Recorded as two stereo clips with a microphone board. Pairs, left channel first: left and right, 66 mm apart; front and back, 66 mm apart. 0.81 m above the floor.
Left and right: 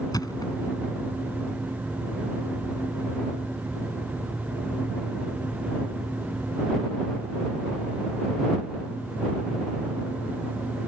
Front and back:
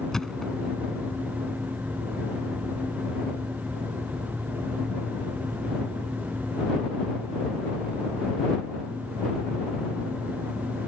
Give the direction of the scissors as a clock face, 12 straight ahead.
No scissors in this recording.